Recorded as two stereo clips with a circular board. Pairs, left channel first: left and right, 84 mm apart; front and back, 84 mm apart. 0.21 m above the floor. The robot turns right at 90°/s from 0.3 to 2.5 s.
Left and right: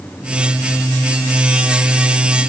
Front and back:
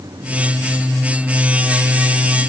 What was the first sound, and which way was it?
Only background noise.